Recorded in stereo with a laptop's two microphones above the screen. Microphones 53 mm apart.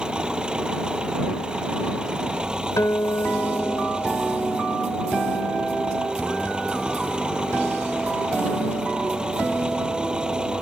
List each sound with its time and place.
0.0 s an engine running: 15° right (ahead or behind)
2.8 s a guitar: 75° left (ahead or behind)